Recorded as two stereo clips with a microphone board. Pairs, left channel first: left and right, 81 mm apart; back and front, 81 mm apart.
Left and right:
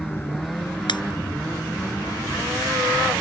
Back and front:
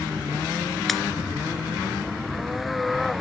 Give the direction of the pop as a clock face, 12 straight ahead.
9 o'clock.